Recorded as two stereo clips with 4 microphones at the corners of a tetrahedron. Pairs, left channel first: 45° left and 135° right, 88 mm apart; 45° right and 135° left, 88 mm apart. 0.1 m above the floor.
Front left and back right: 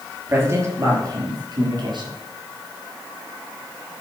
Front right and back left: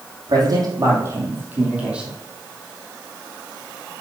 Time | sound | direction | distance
0.3 | a man speaking | 165° left | 3.5 m